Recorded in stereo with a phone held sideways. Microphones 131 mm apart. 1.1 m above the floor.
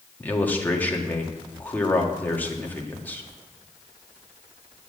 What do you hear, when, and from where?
0.2 s a man speaking: 15° left (ahead or behind), 1.6 m